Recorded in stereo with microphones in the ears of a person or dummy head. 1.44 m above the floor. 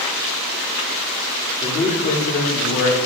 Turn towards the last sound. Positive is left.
turn(degrees=40)  # may be behind; listen again after turning